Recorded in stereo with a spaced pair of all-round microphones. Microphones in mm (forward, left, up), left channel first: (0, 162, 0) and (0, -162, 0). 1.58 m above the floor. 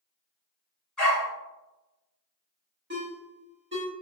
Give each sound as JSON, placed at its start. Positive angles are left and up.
{"t": 1.0, "sound": "a dog barking", "side_deg": 0, "distance_m": 1.6}
{"t": 2.9, "sound": "a ringtone", "side_deg": -35, "distance_m": 1.3}